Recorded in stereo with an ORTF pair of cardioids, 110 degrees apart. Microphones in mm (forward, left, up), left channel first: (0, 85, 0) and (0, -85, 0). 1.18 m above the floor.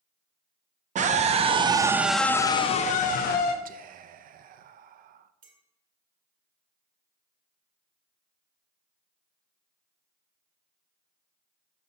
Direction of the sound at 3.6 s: 55° right.